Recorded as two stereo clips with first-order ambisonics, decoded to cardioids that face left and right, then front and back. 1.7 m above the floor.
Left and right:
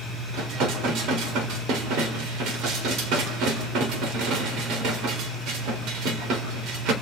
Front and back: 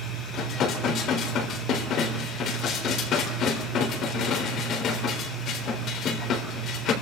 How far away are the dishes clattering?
About 4 m.